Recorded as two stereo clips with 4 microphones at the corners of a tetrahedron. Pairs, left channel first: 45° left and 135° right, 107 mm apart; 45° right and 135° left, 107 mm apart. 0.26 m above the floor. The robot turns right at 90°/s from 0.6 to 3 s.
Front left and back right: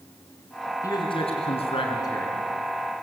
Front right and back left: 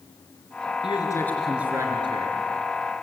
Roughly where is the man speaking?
Ahead.